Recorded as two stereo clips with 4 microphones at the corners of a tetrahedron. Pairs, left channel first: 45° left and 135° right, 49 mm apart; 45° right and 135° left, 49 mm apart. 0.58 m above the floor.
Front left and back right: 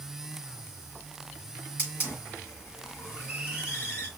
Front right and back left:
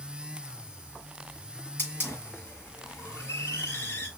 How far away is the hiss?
About 5 m.